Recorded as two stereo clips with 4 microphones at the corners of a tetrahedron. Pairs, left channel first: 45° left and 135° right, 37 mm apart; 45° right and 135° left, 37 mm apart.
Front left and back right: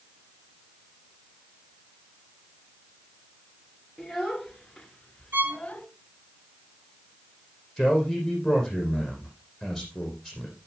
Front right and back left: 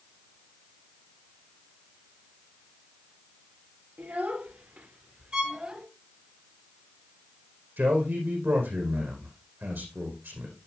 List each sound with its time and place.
4.0 s a child speaking: 140° left, 2 m; by 5.9 s 90° left, 1.4 m
5.3 s a violin: 160° right, 1.2 m
7.8 s a man speaking: 135° left, 6.5 m